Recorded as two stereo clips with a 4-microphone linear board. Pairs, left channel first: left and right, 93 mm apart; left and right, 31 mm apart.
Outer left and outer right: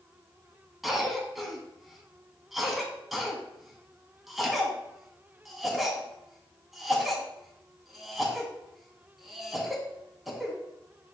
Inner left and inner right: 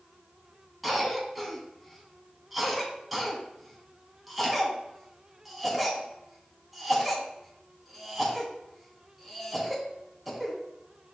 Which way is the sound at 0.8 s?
Centre (ahead or behind).